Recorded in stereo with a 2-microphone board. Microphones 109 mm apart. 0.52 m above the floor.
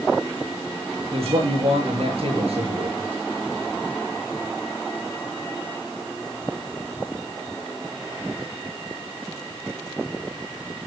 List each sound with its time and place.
1.1 s a man speaking: 65° right (ahead or behind), 7.5 m